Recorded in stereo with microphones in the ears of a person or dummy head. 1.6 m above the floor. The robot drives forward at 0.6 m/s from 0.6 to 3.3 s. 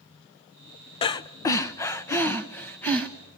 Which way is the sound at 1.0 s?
35° left (ahead or behind).